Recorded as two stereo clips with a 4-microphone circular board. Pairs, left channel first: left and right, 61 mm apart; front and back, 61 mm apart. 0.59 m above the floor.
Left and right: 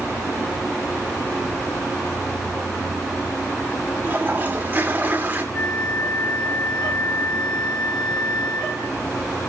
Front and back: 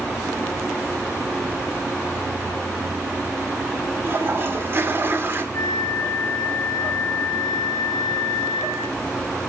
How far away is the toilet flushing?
About 1.9 m.